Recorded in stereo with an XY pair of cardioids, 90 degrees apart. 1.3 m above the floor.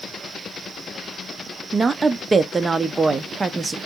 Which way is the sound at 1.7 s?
35° right.